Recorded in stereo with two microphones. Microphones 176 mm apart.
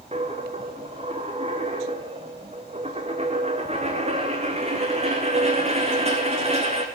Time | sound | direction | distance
0.1 | a dropped coin | 35° right (ahead or behind) | 2.0 m